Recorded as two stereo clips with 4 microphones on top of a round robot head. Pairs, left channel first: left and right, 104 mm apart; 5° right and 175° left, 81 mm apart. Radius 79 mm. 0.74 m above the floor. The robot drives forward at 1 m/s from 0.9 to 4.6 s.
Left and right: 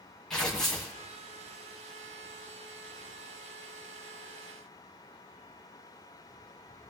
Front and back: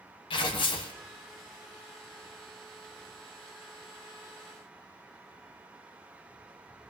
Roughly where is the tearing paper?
Ahead.